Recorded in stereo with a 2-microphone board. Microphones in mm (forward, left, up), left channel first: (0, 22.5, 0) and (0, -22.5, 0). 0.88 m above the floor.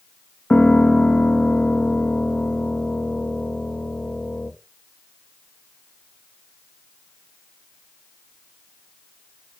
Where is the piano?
35° left (ahead or behind), 1.2 m.